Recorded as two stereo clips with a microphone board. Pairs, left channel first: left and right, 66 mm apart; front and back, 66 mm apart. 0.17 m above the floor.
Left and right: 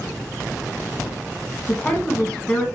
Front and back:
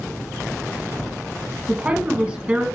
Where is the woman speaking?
135° left, 1.2 m.